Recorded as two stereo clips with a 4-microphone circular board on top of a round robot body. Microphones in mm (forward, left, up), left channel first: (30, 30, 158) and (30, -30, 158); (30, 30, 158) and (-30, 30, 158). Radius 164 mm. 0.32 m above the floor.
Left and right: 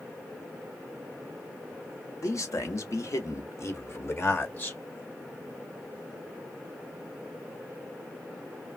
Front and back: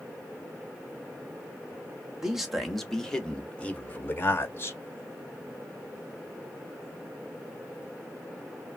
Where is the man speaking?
100° left, 1.5 m; by 4.8 s 40° left, 1.6 m.